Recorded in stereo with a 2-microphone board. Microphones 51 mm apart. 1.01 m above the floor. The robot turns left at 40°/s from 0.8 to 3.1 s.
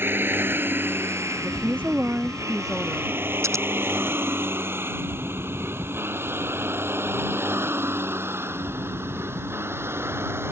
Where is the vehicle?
45° right (ahead or behind); by 10.5 s 50° right (ahead or behind).